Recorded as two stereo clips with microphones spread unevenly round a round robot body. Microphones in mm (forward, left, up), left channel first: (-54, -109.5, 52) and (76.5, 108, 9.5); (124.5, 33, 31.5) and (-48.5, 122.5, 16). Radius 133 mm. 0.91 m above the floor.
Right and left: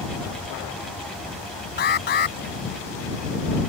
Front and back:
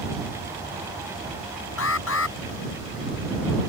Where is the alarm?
70° right.